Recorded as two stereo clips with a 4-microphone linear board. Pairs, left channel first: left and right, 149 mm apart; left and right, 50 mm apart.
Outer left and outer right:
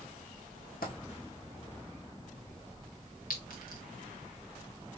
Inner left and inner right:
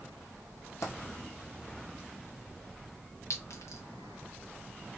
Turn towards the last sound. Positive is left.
turn(degrees=75)  # may be behind; listen again after turning